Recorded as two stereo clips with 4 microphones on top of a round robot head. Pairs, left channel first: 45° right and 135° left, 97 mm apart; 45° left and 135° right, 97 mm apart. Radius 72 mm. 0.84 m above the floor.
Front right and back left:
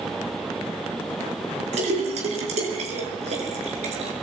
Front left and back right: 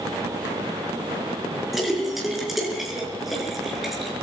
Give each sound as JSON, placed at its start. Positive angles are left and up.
{"t": 1.7, "sound": "a splash", "azimuth_deg": 135, "distance_m": 5.5}